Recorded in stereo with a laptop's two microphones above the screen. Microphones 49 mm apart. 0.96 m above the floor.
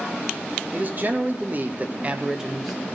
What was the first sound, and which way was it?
A man speaking, 40° right (ahead or behind).